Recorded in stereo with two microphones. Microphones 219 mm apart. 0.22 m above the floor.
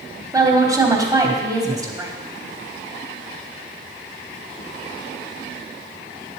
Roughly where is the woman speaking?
Centre.